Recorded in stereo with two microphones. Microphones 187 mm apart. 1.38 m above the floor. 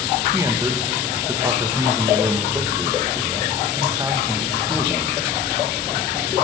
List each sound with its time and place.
0.3 s a man speaking: 20° right (ahead or behind), 1.4 m